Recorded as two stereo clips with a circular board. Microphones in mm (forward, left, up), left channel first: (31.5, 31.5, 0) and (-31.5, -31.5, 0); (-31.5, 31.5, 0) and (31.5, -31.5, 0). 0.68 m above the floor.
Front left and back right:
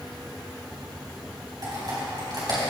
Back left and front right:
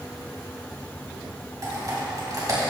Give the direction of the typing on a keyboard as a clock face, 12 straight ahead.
3 o'clock.